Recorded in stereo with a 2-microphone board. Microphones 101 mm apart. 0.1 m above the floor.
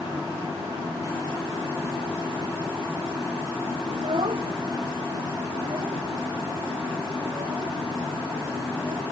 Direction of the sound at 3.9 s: 65° right (ahead or behind).